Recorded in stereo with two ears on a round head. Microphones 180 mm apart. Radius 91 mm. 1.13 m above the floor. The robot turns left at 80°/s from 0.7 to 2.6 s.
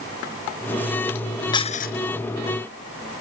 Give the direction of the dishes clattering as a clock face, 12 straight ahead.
7 o'clock.